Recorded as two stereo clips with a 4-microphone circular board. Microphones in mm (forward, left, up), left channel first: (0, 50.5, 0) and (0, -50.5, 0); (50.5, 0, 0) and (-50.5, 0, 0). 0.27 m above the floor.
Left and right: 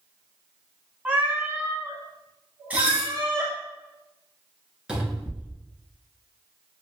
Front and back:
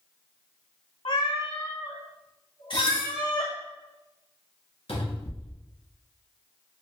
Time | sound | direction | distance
1.1 | a cat meowing | 15° right | 0.7 m
2.7 | dishes clattering | 20° right | 1.5 m
4.9 | a cupboard door | 10° right | 1.2 m